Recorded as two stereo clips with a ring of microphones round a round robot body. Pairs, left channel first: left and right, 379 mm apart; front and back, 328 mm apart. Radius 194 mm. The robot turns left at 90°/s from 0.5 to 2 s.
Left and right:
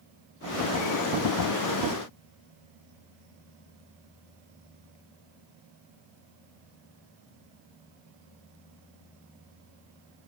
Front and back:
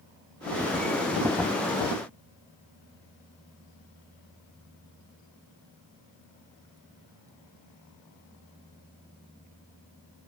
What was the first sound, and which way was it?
Only background noise.